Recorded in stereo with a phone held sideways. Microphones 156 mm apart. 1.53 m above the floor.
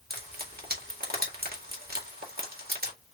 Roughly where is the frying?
Right.